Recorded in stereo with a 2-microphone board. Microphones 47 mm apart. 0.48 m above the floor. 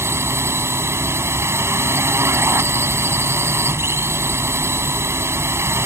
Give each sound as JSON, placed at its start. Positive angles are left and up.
{"t": 0.0, "sound": "a drone", "side_deg": -65}